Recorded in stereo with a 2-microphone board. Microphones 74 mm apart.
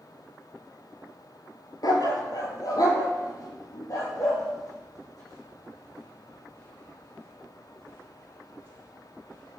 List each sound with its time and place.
1.8 s a dog barking: 60° left (ahead or behind), 1.3 m; by 9.6 s 45° left (ahead or behind), 7.5 m